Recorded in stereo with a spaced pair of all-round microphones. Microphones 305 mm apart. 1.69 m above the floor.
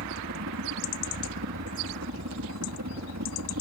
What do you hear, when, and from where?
0.0 s a helicopter: 60° right (ahead or behind)